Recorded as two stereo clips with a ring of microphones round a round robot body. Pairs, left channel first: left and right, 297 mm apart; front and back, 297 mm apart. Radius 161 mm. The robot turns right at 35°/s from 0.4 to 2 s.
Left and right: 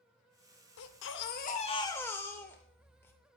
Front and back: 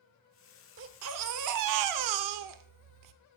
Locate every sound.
0.8 s a baby crying: 130° left, 0.7 m; by 3.1 s 170° left, 0.7 m